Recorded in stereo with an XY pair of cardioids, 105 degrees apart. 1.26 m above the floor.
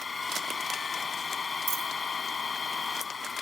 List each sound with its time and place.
0.0 s a machine running: 35° left
1.7 s a dropped coin: 55° right